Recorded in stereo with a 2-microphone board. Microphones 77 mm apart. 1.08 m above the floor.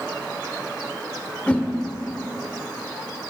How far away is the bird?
I don't hear a bird.